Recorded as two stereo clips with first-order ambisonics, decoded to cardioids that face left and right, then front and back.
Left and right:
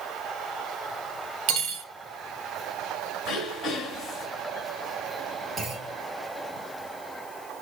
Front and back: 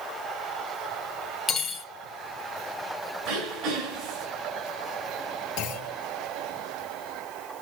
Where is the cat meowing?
No cat meowing in this recording.